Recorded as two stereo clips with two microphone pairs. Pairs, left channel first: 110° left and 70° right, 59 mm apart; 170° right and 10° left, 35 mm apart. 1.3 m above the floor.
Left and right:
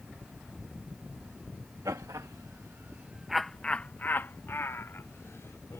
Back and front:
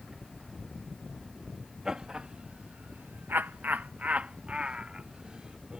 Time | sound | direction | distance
1.9 | laughter | 65° right | ?